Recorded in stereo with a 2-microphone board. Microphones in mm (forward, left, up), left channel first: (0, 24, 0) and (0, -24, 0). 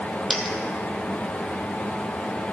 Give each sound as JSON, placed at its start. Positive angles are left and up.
{"t": 0.3, "sound": "a dropped coin", "side_deg": 5, "distance_m": 1.3}